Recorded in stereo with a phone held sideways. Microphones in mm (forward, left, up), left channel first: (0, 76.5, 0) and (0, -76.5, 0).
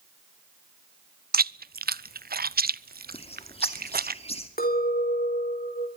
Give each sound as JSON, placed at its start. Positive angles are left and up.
{"t": 1.3, "sound": "chewing", "side_deg": -80, "distance_m": 0.5}
{"t": 3.1, "sound": "a bird", "side_deg": 40, "distance_m": 2.5}
{"t": 4.6, "sound": "a clink", "side_deg": 80, "distance_m": 3.5}